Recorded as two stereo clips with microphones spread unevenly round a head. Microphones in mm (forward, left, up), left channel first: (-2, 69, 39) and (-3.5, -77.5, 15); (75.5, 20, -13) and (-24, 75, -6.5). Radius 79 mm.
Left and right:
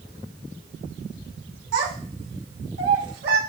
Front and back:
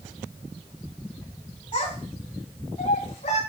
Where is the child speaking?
85° right, 4 m; by 3.4 s 75° right, 4.5 m.